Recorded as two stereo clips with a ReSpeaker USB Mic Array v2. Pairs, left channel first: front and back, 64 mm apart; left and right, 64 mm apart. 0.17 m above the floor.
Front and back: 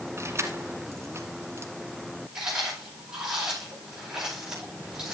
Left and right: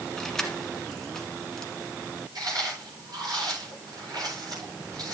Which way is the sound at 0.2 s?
170° left.